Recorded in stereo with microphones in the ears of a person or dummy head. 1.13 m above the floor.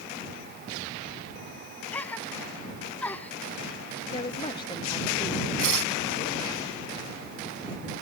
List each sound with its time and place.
1.9 s a gasp: 10° left (ahead or behind)
4.1 s a woman speaking: 20° left (ahead or behind)
5.6 s tearing paper: 70° right (ahead or behind)